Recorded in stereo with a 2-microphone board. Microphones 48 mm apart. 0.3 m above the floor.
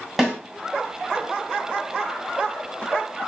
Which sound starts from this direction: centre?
A snare drum, at 0.2 s.